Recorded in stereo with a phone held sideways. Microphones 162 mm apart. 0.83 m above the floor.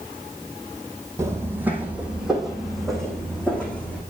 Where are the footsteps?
15° right (ahead or behind), 1.6 m; by 4.0 s 10° left (ahead or behind), 2.5 m.